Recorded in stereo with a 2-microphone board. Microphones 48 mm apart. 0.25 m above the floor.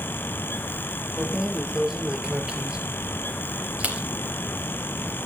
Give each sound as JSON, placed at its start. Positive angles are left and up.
{"t": 1.2, "sound": "keys jangling", "side_deg": -10, "distance_m": 3.5}